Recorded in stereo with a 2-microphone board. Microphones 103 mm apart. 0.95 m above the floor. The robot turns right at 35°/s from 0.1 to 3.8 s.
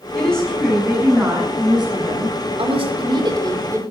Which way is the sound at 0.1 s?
165° left.